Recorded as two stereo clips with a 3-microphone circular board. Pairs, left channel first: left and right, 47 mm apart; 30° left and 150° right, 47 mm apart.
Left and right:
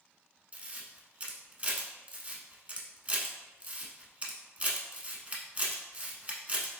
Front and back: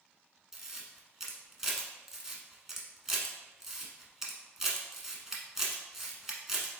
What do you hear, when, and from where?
0.5 s a camera shutter: 75° right, 0.9 m